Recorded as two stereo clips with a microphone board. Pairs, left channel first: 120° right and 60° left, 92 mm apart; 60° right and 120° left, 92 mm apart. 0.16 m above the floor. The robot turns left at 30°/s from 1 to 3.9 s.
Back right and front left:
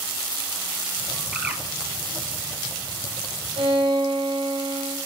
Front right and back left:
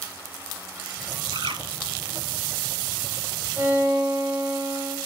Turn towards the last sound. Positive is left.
turn(degrees=45)